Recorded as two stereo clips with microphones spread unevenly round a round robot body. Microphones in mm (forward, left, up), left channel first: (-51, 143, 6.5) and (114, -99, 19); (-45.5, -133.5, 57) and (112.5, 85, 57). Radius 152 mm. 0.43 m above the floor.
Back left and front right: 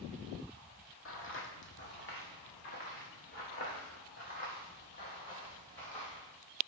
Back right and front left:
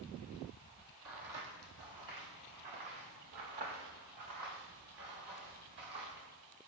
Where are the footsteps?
80° left, 0.9 m; by 6.3 s 60° left, 4 m.